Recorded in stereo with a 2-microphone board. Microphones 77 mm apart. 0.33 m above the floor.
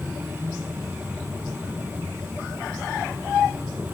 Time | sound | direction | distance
0.0 | an insect | 35° right (ahead or behind) | 1.9 m